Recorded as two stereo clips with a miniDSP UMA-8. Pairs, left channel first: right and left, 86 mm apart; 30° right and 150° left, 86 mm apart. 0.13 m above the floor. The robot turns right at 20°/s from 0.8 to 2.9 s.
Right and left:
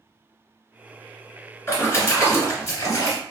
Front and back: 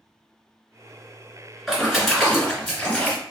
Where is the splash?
130° right, 1.9 m; by 3.2 s 110° right, 1.9 m.